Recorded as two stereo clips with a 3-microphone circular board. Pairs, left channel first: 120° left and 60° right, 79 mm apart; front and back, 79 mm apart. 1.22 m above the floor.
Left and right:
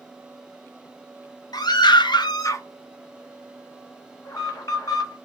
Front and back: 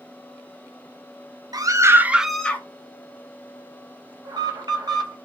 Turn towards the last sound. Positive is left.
turn(degrees=155)